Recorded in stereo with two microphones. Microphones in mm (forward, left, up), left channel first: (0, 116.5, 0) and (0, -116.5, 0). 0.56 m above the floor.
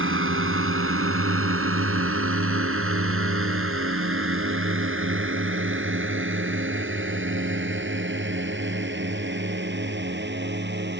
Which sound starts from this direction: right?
A drone, at 0.0 s.